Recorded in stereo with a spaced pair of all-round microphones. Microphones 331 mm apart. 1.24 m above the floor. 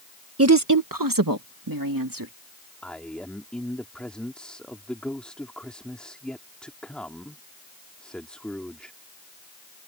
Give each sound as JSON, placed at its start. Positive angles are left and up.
{"t": 0.4, "sound": "a woman speaking", "side_deg": -45}
{"t": 2.8, "sound": "a man speaking", "side_deg": 5}